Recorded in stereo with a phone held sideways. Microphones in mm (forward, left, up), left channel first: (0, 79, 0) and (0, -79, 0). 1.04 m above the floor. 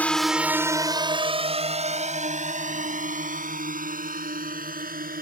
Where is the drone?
10° left (ahead or behind); by 5.2 s 65° right (ahead or behind).